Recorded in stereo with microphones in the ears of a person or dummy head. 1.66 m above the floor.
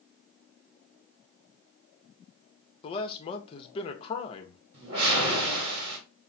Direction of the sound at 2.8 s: 30° left (ahead or behind).